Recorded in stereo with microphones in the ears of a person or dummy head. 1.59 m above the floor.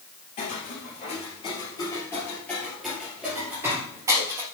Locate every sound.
0.4 s footsteps: 30° left (ahead or behind), 2.5 m; by 4.4 s 25° right (ahead or behind), 2.5 m